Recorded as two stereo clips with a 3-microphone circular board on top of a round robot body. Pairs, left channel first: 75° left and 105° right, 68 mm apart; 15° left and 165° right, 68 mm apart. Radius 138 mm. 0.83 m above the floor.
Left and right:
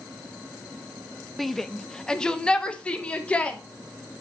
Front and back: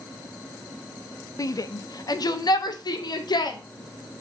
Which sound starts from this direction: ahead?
A shout, at 1.4 s.